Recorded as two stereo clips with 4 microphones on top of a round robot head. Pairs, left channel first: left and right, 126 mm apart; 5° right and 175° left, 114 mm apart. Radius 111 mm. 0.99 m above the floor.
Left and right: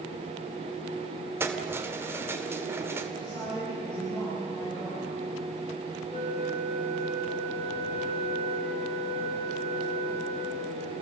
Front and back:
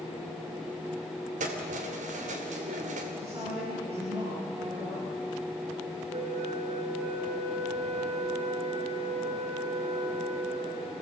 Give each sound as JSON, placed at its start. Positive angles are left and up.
{"t": 1.4, "sound": "keys jangling", "azimuth_deg": -160, "distance_m": 2.0}
{"t": 3.2, "sound": "a woman speaking", "azimuth_deg": 140, "distance_m": 10.0}
{"t": 6.1, "sound": "a flute", "azimuth_deg": 135, "distance_m": 5.0}